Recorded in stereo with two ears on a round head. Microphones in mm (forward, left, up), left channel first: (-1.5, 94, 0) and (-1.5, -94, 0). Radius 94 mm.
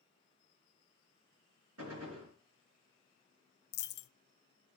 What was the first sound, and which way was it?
A gunshot, 80° right.